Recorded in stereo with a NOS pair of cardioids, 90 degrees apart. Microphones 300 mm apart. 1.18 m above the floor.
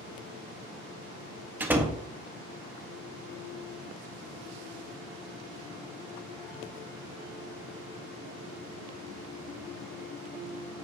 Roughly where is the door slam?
Ahead.